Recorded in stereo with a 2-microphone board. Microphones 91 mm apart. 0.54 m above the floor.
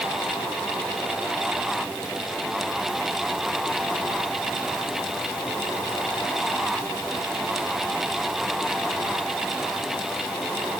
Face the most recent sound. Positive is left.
No sound to turn to.